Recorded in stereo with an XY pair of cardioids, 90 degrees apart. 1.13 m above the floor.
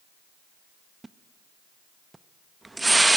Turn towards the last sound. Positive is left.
turn(degrees=-20)